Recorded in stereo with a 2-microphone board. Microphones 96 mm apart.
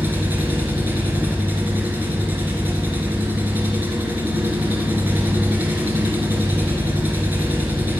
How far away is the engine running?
About 2.5 m.